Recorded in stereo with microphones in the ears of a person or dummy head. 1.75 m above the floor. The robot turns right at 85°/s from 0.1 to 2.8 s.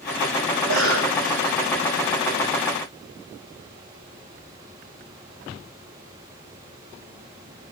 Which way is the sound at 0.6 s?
110° right.